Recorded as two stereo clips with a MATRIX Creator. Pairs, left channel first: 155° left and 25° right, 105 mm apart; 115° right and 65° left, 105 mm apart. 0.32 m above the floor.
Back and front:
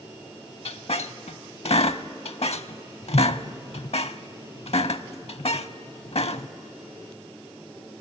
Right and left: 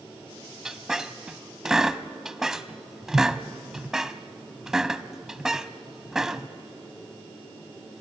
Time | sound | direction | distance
0.7 | a squeak | 155° left | 0.6 m